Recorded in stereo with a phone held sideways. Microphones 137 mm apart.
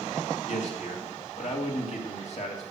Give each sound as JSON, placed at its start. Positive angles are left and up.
{"t": 0.5, "sound": "a man speaking", "side_deg": 55, "distance_m": 2.5}